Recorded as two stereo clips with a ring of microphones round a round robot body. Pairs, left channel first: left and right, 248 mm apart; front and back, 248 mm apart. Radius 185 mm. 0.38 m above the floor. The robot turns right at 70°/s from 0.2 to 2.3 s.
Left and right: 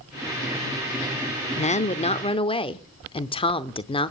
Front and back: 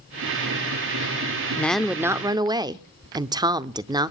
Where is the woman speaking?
75° left, 0.8 m; by 4.1 s 125° left, 0.8 m.